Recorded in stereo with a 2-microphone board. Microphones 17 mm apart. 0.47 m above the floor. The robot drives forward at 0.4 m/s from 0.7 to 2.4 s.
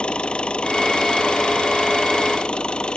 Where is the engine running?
70° left (ahead or behind); by 3.0 s 65° left (ahead or behind).